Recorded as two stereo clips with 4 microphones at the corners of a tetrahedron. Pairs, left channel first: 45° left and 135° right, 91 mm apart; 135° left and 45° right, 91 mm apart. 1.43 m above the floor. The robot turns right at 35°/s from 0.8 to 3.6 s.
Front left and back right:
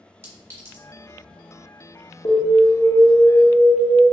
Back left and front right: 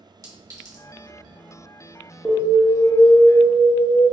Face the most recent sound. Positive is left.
turn(degrees=110)